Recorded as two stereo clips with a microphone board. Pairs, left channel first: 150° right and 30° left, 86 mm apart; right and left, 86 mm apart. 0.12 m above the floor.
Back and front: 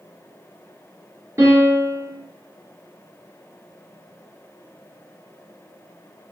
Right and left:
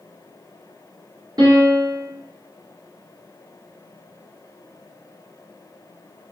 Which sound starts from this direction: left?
A piano, at 1.4 s.